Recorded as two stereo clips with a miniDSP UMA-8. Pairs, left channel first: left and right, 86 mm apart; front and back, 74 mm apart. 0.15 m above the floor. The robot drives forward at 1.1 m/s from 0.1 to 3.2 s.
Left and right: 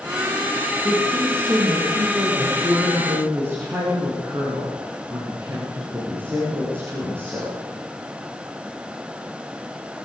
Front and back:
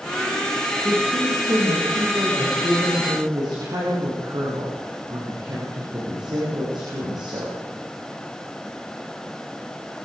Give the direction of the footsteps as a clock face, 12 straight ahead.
I don't hear footsteps.